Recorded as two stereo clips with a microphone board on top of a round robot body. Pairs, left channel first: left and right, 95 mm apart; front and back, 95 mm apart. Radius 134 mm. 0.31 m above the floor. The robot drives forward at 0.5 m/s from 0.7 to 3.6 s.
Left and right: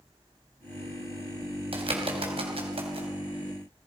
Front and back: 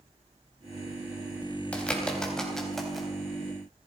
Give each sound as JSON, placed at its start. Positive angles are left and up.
{"t": 1.7, "sound": "a bird", "azimuth_deg": -75, "distance_m": 3.5}